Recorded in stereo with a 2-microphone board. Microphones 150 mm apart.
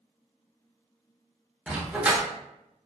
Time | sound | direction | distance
1.7 | a dog barking | 10° right (ahead or behind) | 0.7 m